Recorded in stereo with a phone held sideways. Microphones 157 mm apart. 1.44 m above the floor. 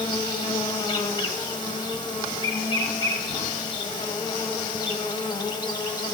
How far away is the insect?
About 1.0 m.